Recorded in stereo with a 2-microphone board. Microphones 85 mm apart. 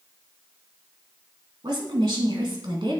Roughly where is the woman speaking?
Right.